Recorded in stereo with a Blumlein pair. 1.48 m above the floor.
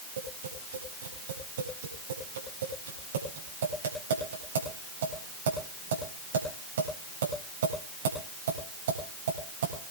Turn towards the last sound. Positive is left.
turn(degrees=-60)